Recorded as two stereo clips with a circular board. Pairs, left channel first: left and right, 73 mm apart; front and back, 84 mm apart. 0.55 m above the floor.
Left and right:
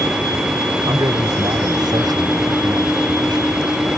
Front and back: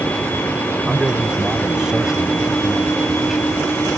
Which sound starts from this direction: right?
A man speaking, at 0.8 s.